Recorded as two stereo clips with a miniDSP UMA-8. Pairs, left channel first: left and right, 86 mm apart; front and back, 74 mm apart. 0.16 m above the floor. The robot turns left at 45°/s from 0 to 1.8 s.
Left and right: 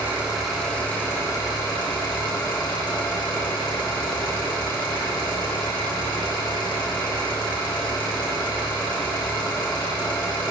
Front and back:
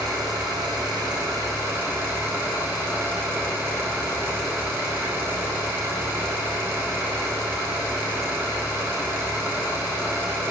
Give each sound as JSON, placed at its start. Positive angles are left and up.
{"t": 0.0, "sound": "an engine running", "azimuth_deg": -155, "distance_m": 4.5}